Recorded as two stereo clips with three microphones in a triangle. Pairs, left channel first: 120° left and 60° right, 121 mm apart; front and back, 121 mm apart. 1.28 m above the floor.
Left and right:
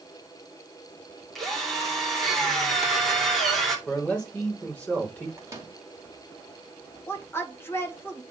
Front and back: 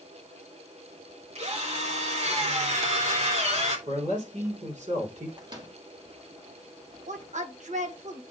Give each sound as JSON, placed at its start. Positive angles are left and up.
{"t": 1.4, "sound": "a drill", "azimuth_deg": -150, "distance_m": 2.5}
{"t": 3.9, "sound": "a man speaking", "azimuth_deg": -160, "distance_m": 3.5}
{"t": 5.4, "sound": "a microwave", "azimuth_deg": -125, "distance_m": 2.5}
{"t": 7.1, "sound": "a woman speaking", "azimuth_deg": -170, "distance_m": 1.5}